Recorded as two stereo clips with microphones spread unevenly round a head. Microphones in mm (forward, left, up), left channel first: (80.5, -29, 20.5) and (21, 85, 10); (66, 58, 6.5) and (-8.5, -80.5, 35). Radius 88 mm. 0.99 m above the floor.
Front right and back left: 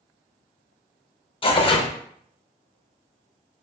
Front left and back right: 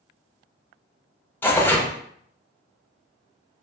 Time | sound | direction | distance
1.4 | tearing paper | 10° right | 0.8 m